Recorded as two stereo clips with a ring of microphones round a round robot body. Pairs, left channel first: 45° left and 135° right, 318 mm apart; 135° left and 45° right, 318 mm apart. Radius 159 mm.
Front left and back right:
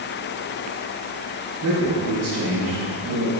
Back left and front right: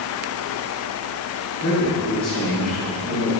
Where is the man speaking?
175° right, 2.5 m.